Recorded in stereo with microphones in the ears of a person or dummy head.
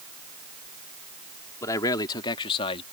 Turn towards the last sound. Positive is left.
turn(degrees=35)  # may be behind; listen again after turning